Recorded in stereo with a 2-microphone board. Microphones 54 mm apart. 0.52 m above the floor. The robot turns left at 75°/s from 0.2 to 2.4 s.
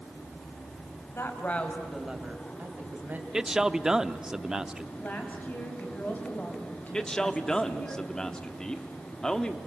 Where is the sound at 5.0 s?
35° left (ahead or behind), 4 m.